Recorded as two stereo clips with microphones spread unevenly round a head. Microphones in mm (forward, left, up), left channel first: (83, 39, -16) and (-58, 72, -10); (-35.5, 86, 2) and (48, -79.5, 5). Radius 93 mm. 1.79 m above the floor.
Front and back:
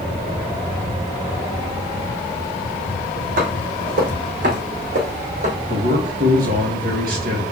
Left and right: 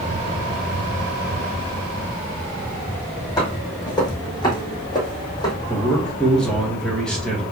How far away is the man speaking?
About 2 m.